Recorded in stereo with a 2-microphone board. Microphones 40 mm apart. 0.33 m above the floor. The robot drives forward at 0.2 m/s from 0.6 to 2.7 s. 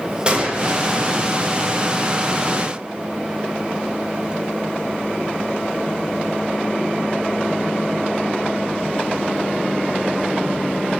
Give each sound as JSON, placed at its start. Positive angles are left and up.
{"t": 0.3, "sound": "a gunshot", "side_deg": -25, "distance_m": 0.6}